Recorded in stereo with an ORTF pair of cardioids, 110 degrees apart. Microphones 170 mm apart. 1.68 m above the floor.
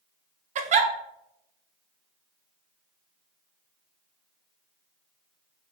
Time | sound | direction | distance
0.6 | a giggle | 45° right | 0.5 m